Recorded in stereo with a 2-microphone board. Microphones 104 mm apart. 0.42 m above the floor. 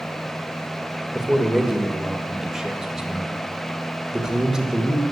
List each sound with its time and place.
1.1 s a man speaking: 5° right (ahead or behind), 1.8 m